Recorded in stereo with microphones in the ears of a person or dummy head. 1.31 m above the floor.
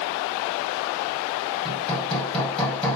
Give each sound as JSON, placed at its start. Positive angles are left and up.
{"t": 1.6, "sound": "hammering", "side_deg": 5, "distance_m": 6.5}